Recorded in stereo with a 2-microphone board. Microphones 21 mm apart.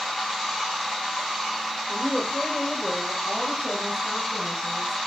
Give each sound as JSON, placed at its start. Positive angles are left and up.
{"t": 1.9, "sound": "a woman speaking", "side_deg": 50, "distance_m": 1.5}